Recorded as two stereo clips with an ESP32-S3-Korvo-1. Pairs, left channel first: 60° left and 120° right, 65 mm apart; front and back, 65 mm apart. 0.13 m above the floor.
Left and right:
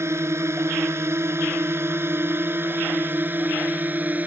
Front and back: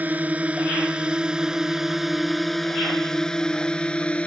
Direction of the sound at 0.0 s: 130° right.